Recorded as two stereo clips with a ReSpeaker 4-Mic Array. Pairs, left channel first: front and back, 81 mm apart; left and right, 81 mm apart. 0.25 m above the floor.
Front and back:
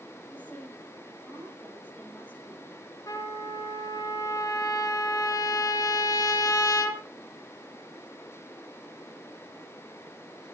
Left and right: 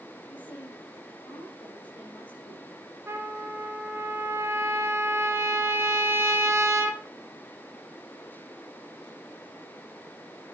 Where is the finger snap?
I don't hear a finger snap.